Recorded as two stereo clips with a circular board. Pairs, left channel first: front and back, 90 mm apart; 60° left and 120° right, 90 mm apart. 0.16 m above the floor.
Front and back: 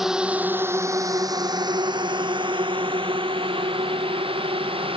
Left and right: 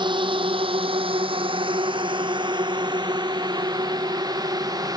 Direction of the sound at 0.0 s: 95° right.